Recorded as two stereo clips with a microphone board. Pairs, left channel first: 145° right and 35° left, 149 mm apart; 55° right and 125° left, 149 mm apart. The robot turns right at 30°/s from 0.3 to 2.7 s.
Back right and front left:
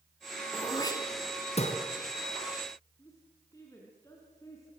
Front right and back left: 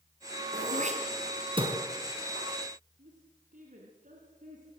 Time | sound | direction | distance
0.5 | throat clearing | 145° left | 3.5 m
3.0 | a woman speaking | 145° left | 4 m